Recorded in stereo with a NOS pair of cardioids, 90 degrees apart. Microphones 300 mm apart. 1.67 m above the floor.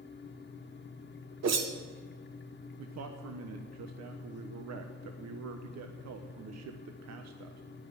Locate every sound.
0.0 s a fan: 35° left, 1.5 m
1.4 s a whoosh: 60° right, 1.6 m
2.8 s a man speaking: 60° right, 1.2 m